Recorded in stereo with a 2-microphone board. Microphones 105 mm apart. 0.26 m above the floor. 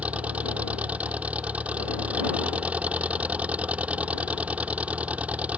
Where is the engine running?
15° right (ahead or behind).